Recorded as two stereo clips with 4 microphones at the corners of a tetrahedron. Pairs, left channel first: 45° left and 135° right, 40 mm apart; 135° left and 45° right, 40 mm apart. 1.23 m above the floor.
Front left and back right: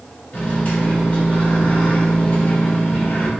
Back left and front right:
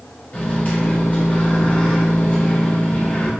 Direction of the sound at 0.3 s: 85° left.